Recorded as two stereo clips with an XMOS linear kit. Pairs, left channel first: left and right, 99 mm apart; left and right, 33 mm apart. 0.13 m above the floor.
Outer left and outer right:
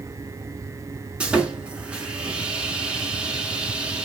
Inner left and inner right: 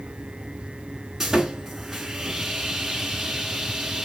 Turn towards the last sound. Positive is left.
turn(degrees=-10)  # may be behind; listen again after turning